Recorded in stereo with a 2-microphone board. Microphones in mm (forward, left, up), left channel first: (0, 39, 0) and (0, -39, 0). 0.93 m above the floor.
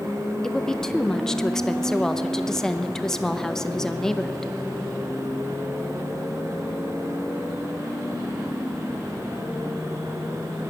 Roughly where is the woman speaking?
Centre.